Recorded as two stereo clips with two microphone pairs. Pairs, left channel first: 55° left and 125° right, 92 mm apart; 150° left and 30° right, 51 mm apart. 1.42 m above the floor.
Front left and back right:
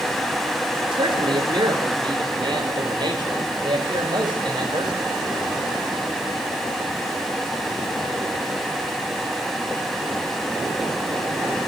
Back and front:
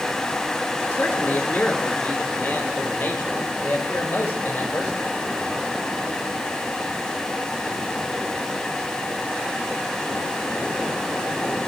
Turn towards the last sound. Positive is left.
turn(degrees=-165)